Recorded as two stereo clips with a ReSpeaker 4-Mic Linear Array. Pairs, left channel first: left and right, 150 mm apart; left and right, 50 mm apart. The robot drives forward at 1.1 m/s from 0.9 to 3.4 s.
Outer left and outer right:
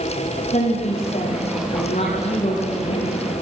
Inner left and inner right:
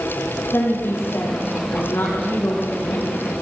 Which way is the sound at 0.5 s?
50° left (ahead or behind).